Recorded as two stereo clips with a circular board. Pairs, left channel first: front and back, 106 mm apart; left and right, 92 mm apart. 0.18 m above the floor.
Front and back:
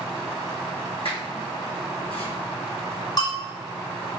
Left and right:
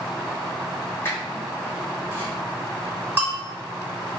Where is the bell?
30° right, 1.9 m.